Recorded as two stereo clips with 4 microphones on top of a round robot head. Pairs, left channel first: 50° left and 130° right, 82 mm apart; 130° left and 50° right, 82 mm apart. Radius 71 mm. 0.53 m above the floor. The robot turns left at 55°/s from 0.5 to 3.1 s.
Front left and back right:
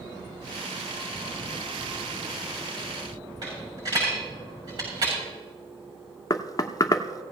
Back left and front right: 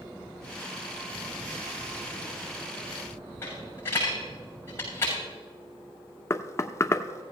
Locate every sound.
3.4 s a dropped coin: 170° right, 6.5 m
6.3 s knocking: 80° left, 0.7 m